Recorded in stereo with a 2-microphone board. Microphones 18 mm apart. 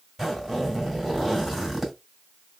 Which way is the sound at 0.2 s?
5° right (ahead or behind).